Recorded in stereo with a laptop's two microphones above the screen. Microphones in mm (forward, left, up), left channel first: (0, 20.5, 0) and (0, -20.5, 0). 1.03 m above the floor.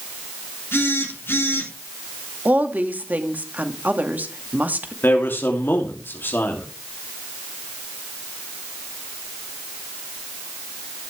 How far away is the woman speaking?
About 2 m.